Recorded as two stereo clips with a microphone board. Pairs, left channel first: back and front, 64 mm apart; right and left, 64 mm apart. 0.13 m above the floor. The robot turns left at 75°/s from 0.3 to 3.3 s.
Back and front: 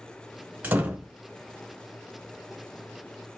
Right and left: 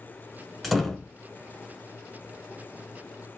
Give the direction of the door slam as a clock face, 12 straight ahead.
12 o'clock.